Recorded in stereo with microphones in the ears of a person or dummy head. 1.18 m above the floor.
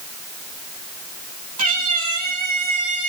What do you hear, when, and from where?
1.6 s a cat meowing: 45° right (ahead or behind), 3 m